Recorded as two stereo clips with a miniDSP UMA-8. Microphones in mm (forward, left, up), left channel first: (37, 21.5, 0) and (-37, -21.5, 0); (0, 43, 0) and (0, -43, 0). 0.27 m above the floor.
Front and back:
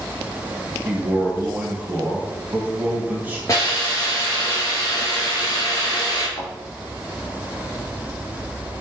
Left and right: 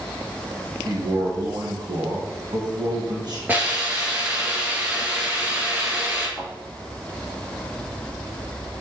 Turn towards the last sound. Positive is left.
turn(degrees=0)